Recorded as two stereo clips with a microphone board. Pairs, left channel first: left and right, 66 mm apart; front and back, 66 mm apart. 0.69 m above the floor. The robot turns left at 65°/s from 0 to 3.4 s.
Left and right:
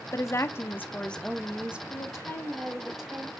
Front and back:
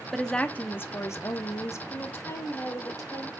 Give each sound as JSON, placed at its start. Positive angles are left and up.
{"t": 0.1, "sound": "a woman speaking", "azimuth_deg": 85, "distance_m": 0.8}
{"t": 1.9, "sound": "a woman speaking", "azimuth_deg": 75, "distance_m": 2.5}